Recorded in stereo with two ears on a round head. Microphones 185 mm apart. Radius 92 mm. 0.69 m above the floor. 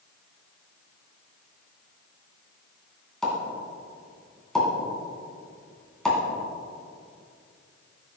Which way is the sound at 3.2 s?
5° left (ahead or behind).